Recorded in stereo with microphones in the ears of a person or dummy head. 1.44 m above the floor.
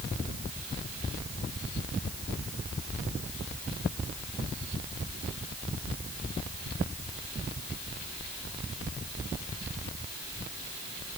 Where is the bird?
No bird in this recording.